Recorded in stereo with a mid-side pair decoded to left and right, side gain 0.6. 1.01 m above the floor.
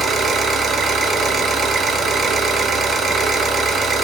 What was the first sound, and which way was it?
An engine running, 40° right.